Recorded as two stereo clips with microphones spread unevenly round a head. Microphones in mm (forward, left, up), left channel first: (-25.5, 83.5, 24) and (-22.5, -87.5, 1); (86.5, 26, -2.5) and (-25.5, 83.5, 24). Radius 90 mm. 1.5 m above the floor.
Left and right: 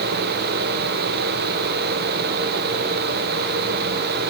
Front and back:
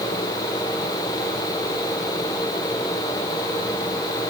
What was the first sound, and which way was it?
Only background noise.